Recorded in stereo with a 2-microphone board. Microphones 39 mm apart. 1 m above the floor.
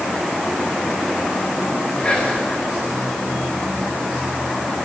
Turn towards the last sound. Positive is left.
turn(degrees=15)  # may be behind; listen again after turning